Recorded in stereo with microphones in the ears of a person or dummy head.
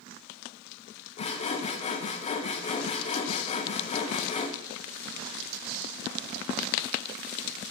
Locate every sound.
1.2 s sawing: 35° left (ahead or behind), 0.9 m